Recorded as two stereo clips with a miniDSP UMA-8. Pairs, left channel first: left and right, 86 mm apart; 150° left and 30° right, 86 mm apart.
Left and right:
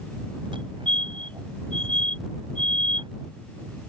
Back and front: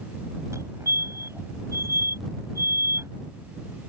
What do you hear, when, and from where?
0.5 s a fire alarm: 85° right